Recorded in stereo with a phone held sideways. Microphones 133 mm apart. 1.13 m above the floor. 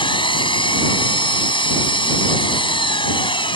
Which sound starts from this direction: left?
An engine running, at 0.0 s.